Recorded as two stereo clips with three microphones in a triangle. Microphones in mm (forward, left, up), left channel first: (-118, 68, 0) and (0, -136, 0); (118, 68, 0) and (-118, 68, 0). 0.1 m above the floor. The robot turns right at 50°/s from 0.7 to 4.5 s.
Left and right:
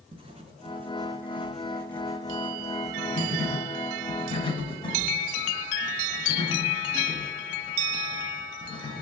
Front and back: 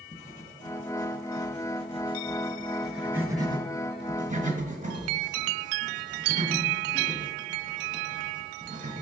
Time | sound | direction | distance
0.1 | writing | 15° right | 0.9 m